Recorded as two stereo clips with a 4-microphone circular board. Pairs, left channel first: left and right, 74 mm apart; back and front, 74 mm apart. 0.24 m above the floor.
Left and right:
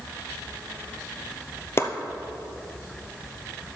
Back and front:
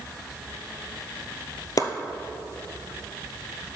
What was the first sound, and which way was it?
Chopping, 145° left.